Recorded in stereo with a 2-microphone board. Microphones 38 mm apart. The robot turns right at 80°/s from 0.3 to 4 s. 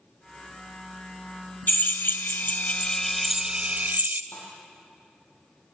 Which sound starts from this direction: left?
A thud, at 4.3 s.